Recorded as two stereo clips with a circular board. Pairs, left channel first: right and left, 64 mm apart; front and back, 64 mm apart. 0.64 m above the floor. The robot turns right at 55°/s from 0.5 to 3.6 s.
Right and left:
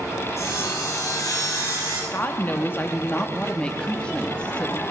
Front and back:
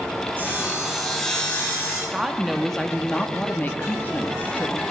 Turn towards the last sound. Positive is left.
turn(degrees=-30)